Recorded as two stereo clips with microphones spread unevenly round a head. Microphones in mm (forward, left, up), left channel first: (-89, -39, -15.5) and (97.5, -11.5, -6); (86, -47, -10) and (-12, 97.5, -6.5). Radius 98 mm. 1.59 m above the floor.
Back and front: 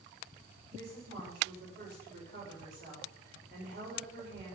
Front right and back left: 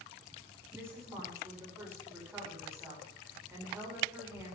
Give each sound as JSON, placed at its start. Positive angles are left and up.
{"t": 0.7, "sound": "a woman speaking", "azimuth_deg": 50, "distance_m": 5.5}